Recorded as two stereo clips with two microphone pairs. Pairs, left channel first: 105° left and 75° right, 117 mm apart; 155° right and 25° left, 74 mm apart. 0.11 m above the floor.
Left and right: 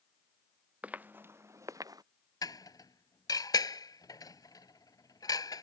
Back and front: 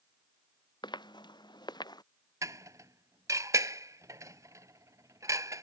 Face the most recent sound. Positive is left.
turn(degrees=55)